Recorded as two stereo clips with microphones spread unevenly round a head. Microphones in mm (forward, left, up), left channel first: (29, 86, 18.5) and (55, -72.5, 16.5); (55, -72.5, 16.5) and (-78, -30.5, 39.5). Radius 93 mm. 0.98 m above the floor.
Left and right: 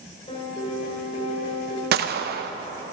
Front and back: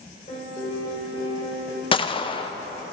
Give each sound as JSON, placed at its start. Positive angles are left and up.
{"t": 0.3, "sound": "a piano", "azimuth_deg": 45, "distance_m": 2.5}
{"t": 1.9, "sound": "a gunshot", "azimuth_deg": -65, "distance_m": 0.5}